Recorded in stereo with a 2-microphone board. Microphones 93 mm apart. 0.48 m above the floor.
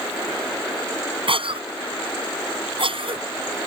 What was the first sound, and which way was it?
A cough, 70° right (ahead or behind).